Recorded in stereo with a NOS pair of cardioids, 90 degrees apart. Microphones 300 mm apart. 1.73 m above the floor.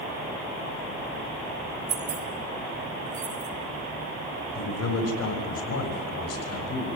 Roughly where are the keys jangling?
Ahead right.